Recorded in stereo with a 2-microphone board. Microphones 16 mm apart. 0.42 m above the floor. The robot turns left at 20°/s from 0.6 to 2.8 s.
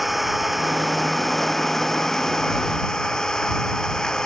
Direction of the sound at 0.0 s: 175° right.